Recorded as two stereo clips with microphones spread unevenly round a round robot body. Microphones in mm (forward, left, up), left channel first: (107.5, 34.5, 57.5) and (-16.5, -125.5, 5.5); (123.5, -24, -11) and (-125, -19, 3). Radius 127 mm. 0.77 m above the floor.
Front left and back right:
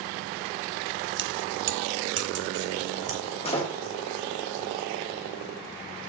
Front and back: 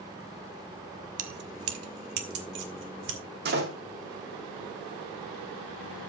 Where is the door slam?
125° left, 1.9 m.